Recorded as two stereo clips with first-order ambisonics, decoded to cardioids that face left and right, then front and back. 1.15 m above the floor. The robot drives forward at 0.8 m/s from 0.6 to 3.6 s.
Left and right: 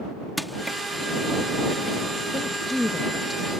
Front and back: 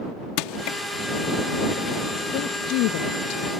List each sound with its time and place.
0.4 s crushing: straight ahead
2.3 s a woman speaking: 5° left; by 3.6 s 15° left